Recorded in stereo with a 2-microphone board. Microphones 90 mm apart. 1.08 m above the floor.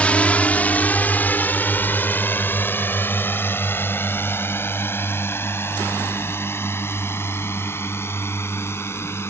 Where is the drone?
15° left (ahead or behind); by 9.3 s 30° left (ahead or behind).